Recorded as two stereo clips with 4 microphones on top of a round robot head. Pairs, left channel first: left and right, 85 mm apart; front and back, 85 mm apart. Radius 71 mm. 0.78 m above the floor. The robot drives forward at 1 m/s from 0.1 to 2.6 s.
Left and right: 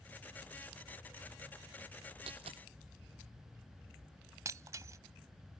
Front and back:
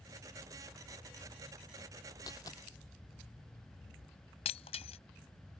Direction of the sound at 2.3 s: 60° right.